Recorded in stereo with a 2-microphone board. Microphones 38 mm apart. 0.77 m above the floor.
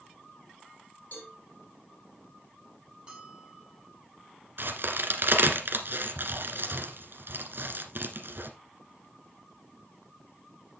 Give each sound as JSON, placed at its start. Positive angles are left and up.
{"t": 1.1, "sound": "a cowbell", "side_deg": 45, "distance_m": 5.0}
{"t": 3.1, "sound": "a bell", "side_deg": -30, "distance_m": 4.0}
{"t": 4.6, "sound": "a crack", "side_deg": -65, "distance_m": 1.6}